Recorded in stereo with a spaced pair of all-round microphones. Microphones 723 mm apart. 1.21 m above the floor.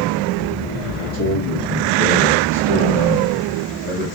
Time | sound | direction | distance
1.1 | a man speaking | 50° left (ahead or behind) | 1.9 m